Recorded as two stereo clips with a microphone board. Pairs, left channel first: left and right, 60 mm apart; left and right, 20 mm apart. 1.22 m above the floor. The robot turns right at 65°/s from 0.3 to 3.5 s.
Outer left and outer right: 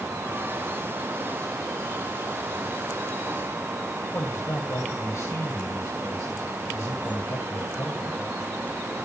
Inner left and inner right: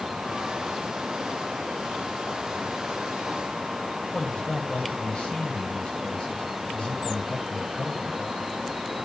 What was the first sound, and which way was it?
A man speaking, 65° left (ahead or behind).